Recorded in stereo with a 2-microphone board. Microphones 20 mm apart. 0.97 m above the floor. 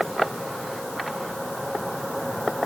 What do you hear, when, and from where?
Only background noise.